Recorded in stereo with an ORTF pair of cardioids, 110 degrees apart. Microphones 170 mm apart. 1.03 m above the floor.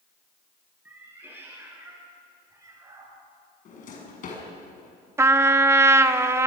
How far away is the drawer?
About 5.5 m.